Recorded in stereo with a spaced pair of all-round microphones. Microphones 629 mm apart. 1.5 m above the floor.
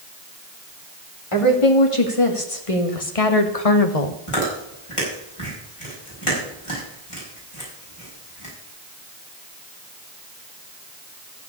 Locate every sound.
1.3 s a woman speaking: 50° left (ahead or behind), 3 m; by 4.2 s 75° left (ahead or behind), 1.4 m
4.3 s chewing: 55° left (ahead or behind), 6 m